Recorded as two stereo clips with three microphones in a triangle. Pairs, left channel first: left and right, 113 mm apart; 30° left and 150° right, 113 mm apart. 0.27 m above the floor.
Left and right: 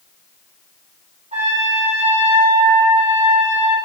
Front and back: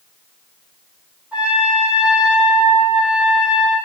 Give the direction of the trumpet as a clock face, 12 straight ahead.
2 o'clock.